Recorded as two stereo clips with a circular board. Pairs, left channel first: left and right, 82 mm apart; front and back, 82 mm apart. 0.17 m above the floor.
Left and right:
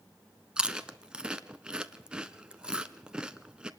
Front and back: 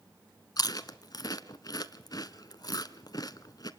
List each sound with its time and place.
0.6 s chewing: 15° right, 1.0 m